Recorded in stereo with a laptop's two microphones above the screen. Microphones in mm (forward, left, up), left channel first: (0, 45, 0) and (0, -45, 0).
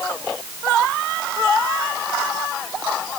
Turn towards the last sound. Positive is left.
No sound to turn to.